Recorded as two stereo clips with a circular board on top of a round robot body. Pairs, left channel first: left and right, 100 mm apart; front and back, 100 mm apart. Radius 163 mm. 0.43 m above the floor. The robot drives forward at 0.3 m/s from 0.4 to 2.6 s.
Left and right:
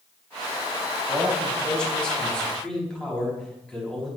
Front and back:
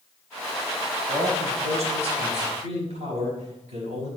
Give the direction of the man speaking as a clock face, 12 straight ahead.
6 o'clock.